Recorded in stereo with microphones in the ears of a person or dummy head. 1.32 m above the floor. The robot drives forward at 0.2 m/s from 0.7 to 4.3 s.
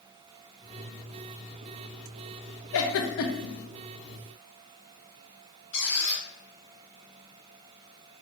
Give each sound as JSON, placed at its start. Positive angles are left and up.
{"t": 2.7, "sound": "a giggle", "side_deg": 70, "distance_m": 0.8}
{"t": 5.7, "sound": "a squeak", "side_deg": 70, "distance_m": 2.0}